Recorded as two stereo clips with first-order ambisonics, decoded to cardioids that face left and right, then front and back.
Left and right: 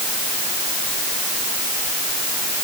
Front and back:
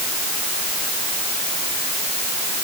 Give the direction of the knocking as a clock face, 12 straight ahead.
I don't hear knocking.